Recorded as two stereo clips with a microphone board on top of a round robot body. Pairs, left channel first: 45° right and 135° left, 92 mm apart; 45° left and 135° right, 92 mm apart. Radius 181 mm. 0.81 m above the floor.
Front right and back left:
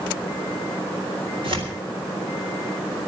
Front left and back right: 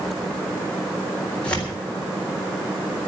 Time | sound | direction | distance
1.4 | tearing paper | 120° left | 4 m